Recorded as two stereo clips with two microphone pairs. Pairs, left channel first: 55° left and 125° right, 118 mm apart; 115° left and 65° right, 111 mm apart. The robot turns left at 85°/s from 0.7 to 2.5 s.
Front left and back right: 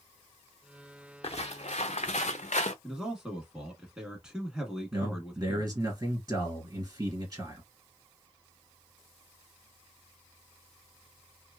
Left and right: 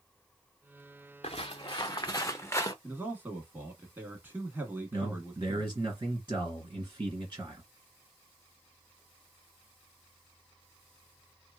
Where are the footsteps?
90° left, 0.9 m; by 2.7 s 60° left, 0.6 m.